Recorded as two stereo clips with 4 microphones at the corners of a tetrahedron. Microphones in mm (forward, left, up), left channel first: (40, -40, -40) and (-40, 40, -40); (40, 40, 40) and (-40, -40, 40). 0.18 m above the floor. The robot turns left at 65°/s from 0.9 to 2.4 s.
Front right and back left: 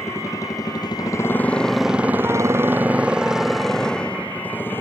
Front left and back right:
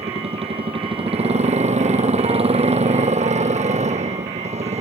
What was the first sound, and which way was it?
A motorcycle, 110° right.